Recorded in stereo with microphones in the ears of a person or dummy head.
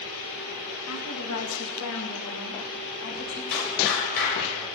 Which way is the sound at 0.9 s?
75° left (ahead or behind).